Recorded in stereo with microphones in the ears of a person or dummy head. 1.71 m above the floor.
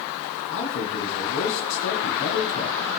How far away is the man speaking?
About 2 m.